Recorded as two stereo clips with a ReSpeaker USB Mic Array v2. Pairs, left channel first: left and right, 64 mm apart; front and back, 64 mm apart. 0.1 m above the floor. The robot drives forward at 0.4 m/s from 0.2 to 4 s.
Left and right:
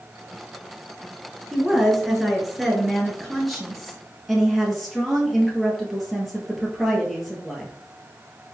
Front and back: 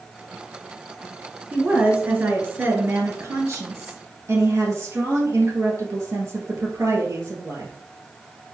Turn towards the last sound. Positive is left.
turn(degrees=-175)